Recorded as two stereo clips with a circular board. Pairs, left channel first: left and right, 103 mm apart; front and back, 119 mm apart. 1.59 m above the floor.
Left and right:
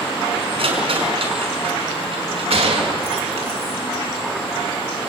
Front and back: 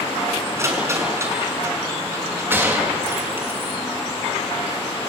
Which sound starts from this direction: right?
A gunshot, at 2.5 s.